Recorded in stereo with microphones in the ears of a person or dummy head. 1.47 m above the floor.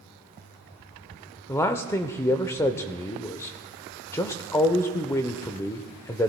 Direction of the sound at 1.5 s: 15° left (ahead or behind).